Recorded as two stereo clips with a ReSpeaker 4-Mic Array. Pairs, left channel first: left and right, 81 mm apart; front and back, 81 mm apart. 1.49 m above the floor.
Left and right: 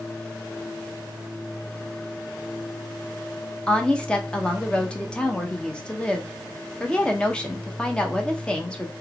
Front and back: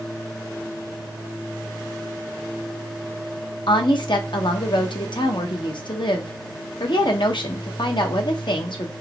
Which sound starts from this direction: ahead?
A woman speaking, at 3.7 s.